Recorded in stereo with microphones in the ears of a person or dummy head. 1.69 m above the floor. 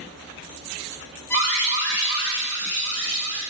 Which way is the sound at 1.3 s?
15° left (ahead or behind).